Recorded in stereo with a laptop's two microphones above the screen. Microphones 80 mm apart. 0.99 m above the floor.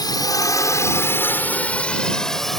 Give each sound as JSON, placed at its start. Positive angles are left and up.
{"t": 0.0, "sound": "a drone", "side_deg": 60}